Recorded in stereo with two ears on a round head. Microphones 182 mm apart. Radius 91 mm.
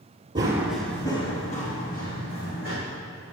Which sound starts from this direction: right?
Running footsteps, at 0.3 s.